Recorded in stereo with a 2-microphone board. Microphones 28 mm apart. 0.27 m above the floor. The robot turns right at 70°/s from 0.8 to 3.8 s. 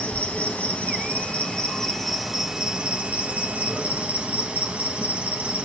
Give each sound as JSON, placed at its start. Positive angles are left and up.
{"t": 0.0, "sound": "an insect", "azimuth_deg": 85, "distance_m": 1.0}